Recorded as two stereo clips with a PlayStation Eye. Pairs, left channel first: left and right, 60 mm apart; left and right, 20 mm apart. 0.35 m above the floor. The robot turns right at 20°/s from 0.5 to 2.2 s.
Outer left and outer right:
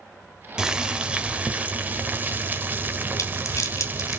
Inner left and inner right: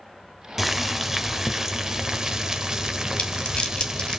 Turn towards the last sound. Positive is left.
turn(degrees=60)  # may be behind; listen again after turning